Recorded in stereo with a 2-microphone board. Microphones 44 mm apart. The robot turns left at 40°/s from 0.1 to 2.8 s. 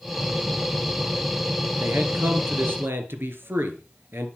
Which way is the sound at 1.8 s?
60° right.